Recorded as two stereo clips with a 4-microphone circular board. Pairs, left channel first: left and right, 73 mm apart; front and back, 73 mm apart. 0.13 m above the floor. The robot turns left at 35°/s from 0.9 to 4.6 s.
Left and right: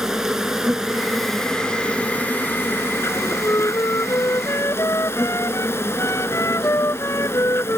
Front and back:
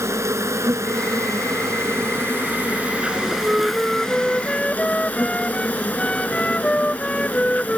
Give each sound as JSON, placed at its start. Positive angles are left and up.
{"t": 0.0, "sound": "an insect", "azimuth_deg": -170}
{"t": 3.1, "sound": "a flute", "azimuth_deg": 125}